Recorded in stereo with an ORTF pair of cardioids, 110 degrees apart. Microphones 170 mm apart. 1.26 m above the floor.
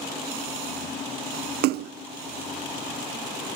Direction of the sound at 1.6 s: 65° right.